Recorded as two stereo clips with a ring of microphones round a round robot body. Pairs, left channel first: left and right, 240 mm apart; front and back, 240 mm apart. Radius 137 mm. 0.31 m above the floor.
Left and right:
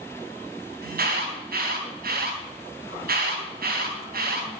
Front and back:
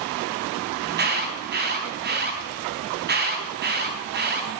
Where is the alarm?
140° right, 4.5 m.